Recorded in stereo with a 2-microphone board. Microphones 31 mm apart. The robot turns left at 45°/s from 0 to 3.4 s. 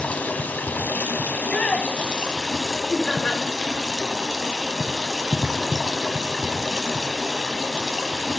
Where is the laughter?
20° left (ahead or behind), 1.2 m; by 3.4 s 25° left (ahead or behind), 1.2 m.